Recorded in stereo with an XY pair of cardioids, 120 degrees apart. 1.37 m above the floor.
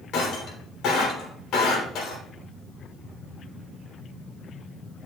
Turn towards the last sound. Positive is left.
turn(degrees=70)